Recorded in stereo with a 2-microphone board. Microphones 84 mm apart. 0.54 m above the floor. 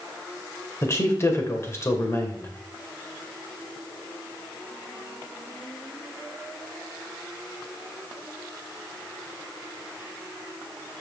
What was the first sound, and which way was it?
A man speaking, 35° left (ahead or behind).